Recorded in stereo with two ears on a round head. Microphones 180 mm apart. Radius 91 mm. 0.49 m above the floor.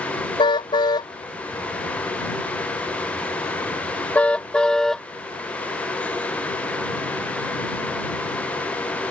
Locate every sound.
0.4 s a car horn: 20° left (ahead or behind); by 5.1 s centre (ahead or behind)